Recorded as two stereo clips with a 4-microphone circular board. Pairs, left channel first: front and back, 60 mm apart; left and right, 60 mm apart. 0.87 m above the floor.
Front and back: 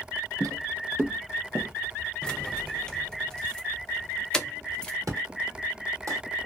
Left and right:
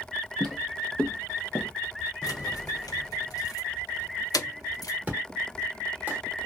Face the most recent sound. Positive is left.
turn(degrees=-155)